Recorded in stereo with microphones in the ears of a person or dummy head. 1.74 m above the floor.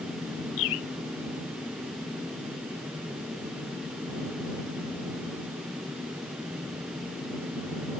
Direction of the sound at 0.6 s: 80° left.